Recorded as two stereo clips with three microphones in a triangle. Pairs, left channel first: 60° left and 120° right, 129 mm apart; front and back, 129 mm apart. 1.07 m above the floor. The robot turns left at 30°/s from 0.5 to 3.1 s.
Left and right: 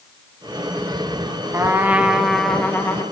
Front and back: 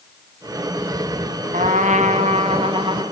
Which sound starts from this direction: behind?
A trumpet, at 1.5 s.